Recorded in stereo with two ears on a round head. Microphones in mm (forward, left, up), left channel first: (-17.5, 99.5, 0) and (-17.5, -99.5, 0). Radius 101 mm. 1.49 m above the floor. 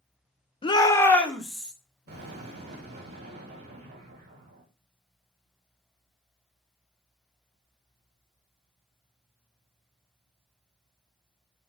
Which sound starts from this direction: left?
A shout, at 0.6 s.